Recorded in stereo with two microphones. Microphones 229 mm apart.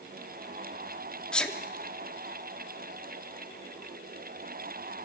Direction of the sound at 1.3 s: 5° left (ahead or behind).